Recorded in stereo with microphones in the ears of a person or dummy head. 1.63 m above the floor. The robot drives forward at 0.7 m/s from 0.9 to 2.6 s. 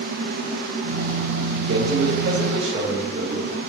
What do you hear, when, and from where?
1.7 s a man speaking: 65° right (ahead or behind), 1.7 m; by 3.5 s 50° right (ahead or behind), 2 m